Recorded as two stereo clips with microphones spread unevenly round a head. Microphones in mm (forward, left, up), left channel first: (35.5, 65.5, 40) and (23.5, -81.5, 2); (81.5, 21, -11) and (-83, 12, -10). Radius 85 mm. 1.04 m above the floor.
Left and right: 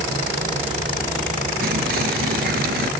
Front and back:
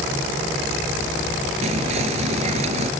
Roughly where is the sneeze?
No sneeze in this recording.